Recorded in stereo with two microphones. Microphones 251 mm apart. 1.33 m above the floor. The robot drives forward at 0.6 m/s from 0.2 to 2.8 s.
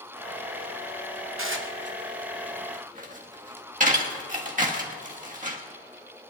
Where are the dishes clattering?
60° right (ahead or behind), 1.0 m; by 5.6 s 35° right (ahead or behind), 1.6 m.